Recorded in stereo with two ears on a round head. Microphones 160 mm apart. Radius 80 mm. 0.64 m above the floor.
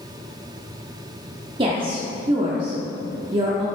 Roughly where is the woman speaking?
Right.